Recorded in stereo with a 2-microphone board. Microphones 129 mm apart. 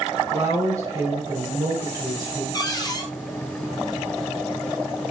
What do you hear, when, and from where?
0.3 s a woman speaking: 30° right (ahead or behind), 1.9 m
2.5 s a cupboard door: 30° left (ahead or behind), 0.8 m